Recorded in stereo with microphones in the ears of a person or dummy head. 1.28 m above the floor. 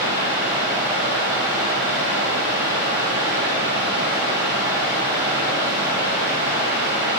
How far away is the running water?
About 1.6 m.